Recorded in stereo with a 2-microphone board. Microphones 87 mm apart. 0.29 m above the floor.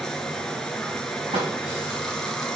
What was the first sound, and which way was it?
Running water, 5° left (ahead or behind).